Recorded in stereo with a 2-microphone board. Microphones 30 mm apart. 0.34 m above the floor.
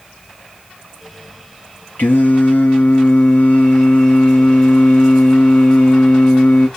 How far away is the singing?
About 1.3 m.